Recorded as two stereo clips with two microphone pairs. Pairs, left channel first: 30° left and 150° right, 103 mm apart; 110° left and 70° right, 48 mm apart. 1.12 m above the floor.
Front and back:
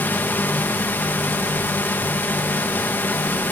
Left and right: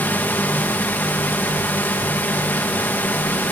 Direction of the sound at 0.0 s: 90° left.